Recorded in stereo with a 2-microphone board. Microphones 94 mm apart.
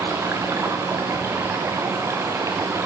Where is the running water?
25° right (ahead or behind), 1.4 m.